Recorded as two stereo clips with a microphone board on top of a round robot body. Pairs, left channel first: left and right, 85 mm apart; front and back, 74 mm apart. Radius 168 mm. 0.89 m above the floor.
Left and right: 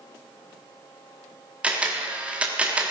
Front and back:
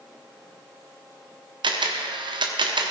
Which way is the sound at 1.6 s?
165° right.